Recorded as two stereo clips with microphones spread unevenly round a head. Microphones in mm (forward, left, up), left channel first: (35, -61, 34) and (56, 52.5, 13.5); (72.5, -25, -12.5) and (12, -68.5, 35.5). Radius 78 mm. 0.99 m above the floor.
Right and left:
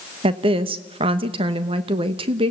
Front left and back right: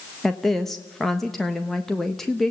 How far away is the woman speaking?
About 1.1 m.